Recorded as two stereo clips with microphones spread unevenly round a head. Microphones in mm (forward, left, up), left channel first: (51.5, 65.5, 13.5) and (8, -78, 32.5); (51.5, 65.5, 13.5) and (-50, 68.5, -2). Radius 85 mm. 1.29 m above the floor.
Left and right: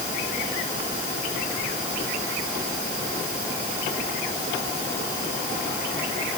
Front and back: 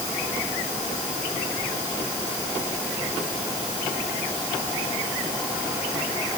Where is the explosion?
No explosion in this recording.